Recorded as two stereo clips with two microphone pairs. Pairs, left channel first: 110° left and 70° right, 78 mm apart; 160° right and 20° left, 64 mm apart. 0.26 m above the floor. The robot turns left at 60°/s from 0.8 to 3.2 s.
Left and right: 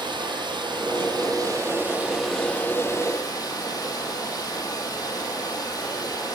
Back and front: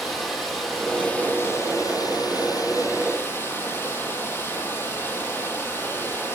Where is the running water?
70° right, 3.5 m; by 6.3 s 145° left, 3.5 m.